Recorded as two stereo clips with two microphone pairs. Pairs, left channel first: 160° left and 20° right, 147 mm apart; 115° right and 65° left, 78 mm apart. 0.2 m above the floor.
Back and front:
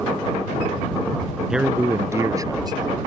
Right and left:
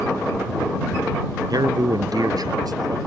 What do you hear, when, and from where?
1.5 s a man speaking: 70° left; by 3.0 s 40° left